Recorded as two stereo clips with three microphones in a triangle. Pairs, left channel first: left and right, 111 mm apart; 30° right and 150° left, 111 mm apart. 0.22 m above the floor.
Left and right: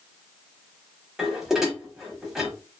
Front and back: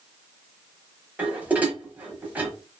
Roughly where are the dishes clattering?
Behind.